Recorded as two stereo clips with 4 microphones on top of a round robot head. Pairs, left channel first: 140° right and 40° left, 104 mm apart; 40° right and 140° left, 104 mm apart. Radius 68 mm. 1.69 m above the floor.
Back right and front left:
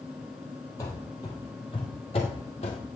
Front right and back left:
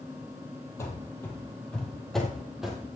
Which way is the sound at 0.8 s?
95° right.